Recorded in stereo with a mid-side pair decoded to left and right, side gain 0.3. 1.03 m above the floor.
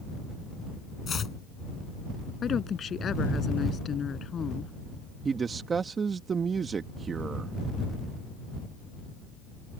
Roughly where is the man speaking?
Ahead right.